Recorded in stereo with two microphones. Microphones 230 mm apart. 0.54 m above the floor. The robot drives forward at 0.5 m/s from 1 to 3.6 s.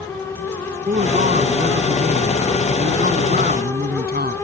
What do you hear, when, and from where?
0.9 s a man speaking: 35° right (ahead or behind); by 4.4 s 40° right (ahead or behind)